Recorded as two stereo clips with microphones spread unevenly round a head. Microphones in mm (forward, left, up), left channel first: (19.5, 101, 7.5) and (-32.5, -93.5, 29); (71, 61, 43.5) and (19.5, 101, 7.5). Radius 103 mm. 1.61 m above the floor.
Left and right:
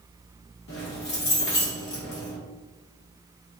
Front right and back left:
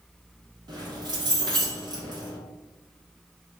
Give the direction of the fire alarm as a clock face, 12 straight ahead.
I don't hear a fire alarm.